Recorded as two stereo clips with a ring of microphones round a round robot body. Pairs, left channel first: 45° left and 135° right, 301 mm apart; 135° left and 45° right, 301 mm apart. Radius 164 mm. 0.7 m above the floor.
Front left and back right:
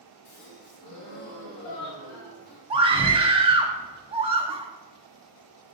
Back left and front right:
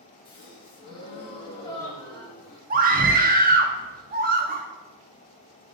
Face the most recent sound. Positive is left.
turn(degrees=-75)